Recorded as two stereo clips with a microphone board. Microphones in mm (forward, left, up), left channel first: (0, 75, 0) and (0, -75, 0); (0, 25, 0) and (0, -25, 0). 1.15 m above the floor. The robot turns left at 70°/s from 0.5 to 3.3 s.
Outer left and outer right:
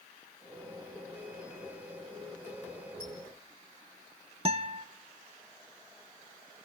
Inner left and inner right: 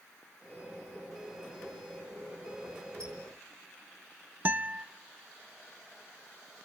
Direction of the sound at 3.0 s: 80° right.